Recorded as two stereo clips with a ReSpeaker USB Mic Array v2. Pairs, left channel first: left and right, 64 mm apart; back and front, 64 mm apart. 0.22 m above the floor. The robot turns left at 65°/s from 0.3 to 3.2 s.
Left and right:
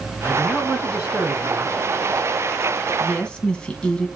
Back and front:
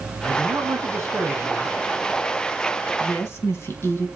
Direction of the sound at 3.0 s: 175° left.